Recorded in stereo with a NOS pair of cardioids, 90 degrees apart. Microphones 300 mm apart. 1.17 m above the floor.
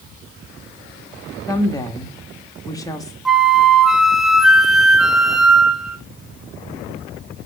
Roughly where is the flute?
Ahead.